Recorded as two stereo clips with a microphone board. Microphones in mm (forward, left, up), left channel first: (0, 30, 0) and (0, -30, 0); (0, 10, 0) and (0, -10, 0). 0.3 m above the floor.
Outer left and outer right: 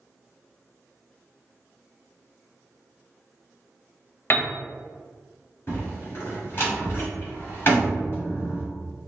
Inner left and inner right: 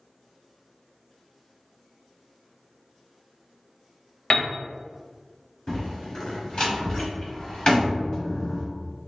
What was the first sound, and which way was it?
A piano, 40° left (ahead or behind).